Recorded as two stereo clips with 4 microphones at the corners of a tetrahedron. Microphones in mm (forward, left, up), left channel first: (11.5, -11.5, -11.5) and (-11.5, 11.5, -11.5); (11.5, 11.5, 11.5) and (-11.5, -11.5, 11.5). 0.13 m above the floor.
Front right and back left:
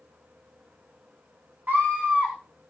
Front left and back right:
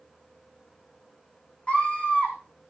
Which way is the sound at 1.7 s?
100° left.